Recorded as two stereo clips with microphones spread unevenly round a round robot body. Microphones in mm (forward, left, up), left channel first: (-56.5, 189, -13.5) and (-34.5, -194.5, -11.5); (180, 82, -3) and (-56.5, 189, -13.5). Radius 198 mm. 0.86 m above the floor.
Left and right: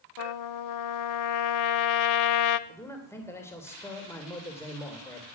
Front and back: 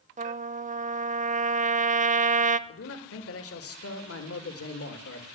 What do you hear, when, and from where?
0.2 s a trumpet: 100° left, 0.8 m
2.7 s a man speaking: 10° left, 3 m